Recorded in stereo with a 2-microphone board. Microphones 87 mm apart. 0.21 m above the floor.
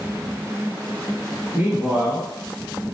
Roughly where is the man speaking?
Right.